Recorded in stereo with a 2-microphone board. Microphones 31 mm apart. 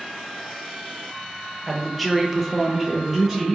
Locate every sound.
1.7 s a woman speaking: 5° left (ahead or behind), 0.7 m; by 3.5 s 10° right (ahead or behind), 0.8 m